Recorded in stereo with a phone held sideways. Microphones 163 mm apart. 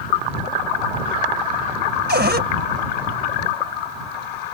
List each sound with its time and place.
2.1 s a cupboard door: 85° right